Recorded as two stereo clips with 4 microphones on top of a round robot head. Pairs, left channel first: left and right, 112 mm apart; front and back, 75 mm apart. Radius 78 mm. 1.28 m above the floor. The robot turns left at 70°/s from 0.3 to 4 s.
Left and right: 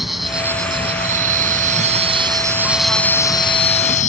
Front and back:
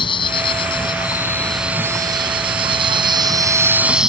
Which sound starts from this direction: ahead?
An insect, at 0.0 s.